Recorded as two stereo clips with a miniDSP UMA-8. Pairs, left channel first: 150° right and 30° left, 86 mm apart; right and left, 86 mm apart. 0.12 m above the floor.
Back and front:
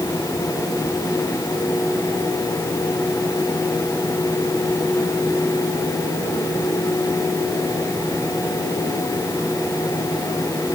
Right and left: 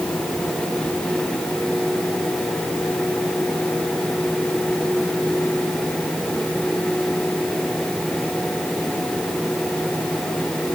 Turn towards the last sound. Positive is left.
No sound to turn to.